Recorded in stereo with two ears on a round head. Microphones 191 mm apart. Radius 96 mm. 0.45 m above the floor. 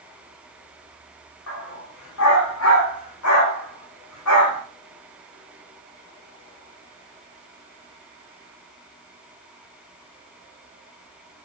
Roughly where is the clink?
I don't hear a clink.